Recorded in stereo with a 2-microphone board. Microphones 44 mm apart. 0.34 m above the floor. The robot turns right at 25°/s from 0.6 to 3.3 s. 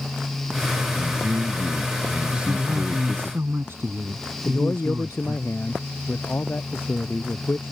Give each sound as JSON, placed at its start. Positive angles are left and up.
{"t": 1.0, "sound": "a man speaking", "azimuth_deg": -60}
{"t": 2.3, "sound": "a man speaking", "side_deg": -70}
{"t": 4.5, "sound": "a man speaking", "side_deg": 55}